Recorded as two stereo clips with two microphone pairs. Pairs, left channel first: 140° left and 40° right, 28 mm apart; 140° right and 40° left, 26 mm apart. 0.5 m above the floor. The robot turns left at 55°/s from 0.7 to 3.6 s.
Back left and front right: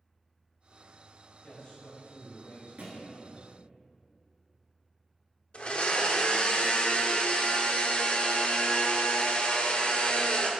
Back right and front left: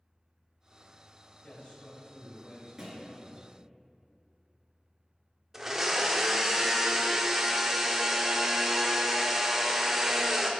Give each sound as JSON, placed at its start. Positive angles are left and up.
{"t": 1.4, "sound": "a man speaking", "azimuth_deg": -150, "distance_m": 1.8}
{"t": 2.8, "sound": "a thud", "azimuth_deg": -30, "distance_m": 1.6}
{"t": 5.5, "sound": "a blender", "azimuth_deg": 115, "distance_m": 0.5}